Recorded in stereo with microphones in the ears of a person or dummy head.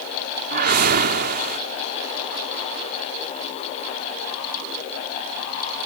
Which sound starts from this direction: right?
A whoosh, at 0.5 s.